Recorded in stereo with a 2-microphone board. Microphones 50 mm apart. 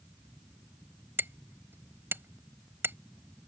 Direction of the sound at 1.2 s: 50° right (ahead or behind).